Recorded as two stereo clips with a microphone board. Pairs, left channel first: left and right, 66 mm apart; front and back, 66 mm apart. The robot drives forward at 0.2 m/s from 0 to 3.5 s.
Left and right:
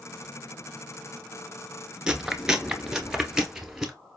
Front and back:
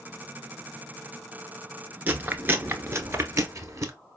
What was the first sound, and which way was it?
Chewing, 160° right.